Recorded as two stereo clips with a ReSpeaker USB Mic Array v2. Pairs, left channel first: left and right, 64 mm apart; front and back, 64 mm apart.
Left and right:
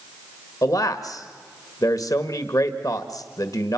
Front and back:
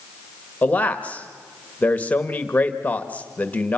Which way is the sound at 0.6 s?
65° left.